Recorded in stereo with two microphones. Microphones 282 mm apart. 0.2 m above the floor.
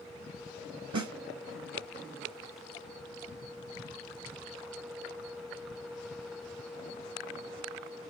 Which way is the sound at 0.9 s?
75° right (ahead or behind).